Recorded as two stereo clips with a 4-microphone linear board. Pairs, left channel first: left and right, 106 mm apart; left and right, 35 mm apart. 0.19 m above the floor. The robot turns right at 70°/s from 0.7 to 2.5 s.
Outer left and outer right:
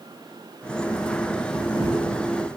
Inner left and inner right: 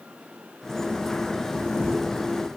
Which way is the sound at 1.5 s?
150° right.